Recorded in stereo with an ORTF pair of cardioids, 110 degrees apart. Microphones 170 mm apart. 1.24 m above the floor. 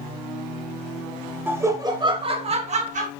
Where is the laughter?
10° right, 1.1 m; by 3.1 s 50° right, 1.5 m.